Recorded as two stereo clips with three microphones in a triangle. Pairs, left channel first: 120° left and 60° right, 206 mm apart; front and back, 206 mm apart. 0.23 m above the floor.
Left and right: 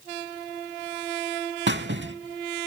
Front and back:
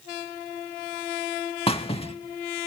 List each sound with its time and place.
1.7 s a squeak: 60° right, 0.5 m